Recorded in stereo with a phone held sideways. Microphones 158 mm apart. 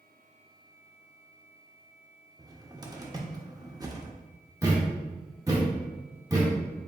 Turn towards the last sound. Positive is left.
turn(degrees=-20)  # may be behind; listen again after turning